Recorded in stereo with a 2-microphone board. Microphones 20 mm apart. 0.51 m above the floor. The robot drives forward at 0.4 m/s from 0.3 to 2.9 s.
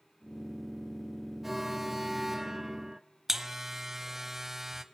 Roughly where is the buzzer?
Centre.